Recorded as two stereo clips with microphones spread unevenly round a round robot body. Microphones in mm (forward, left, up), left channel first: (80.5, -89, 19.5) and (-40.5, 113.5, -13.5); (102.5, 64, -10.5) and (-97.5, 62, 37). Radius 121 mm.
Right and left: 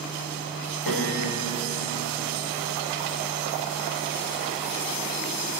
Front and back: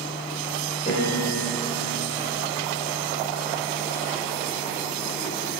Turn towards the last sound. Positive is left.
turn(degrees=-65)